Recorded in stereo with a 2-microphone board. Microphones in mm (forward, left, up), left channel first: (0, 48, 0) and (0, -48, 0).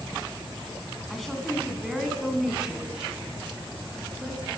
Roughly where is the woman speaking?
Centre.